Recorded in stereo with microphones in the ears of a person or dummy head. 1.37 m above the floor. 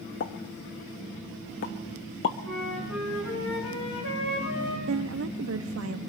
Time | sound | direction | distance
0.2 | a pop | 30° left (ahead or behind) | 0.8 m
2.4 | a flute | 60° left (ahead or behind) | 4.5 m
4.9 | a woman speaking | 65° right (ahead or behind) | 0.6 m